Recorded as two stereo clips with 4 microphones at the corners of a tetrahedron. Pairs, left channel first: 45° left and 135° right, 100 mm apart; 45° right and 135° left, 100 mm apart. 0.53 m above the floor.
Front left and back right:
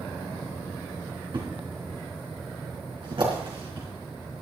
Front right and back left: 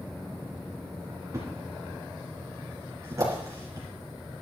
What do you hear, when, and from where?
1.3 s a thud: 170° right, 3.5 m